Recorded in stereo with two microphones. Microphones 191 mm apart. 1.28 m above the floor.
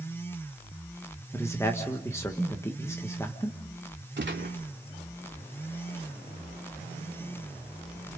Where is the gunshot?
80° right, 2 m.